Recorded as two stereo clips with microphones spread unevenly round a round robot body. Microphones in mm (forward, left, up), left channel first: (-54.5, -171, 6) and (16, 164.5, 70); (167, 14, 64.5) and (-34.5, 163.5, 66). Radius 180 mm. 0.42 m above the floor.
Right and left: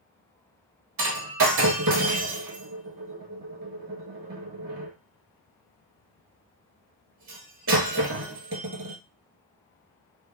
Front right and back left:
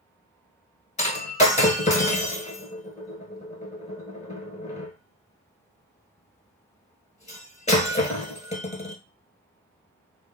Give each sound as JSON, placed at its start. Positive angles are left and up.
{"t": 1.0, "sound": "breaking glass", "azimuth_deg": 25, "distance_m": 0.9}